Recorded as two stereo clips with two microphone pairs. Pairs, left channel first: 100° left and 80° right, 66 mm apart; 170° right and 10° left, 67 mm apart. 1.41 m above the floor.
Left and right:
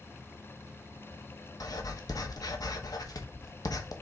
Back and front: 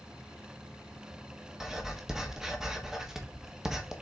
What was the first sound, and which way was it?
Writing, 90° left.